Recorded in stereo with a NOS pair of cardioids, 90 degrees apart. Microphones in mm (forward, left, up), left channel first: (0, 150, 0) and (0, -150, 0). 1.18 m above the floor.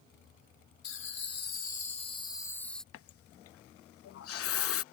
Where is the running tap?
50° left.